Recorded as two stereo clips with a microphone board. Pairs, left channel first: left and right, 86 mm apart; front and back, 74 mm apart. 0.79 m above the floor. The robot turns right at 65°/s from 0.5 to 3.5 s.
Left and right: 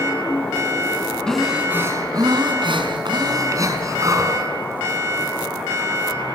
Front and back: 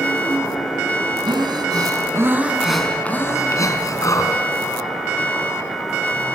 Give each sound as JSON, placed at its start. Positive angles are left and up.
{"t": 1.3, "sound": "breathing", "azimuth_deg": 170, "distance_m": 4.0}